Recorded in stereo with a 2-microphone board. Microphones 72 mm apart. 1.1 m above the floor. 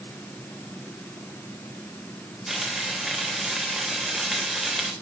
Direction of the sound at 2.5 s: 5° right (ahead or behind).